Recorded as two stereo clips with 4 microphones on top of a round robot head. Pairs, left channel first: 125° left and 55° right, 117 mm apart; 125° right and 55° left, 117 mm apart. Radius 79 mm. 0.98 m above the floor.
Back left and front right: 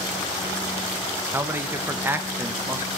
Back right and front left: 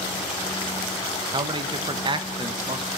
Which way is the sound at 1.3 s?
15° left.